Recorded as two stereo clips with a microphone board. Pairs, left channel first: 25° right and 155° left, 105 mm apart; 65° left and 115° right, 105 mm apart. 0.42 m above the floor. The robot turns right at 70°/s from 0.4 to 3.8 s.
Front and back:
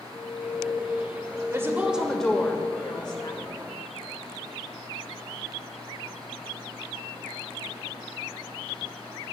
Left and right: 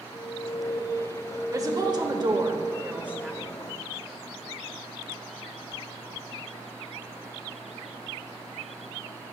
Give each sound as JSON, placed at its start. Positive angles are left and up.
{"t": 0.1, "sound": "an alarm", "azimuth_deg": 5, "distance_m": 1.4}
{"t": 1.5, "sound": "a woman speaking", "azimuth_deg": -155, "distance_m": 1.7}